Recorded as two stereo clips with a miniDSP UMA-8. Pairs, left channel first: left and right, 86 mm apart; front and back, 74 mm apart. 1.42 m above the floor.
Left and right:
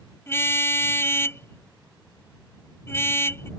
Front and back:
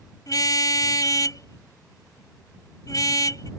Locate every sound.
0.3 s a car horn: 30° left